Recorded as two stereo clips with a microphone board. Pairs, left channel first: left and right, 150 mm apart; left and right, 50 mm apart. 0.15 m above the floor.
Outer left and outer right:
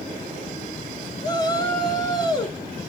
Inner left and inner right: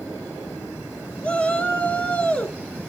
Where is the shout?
30° left (ahead or behind), 2.5 m.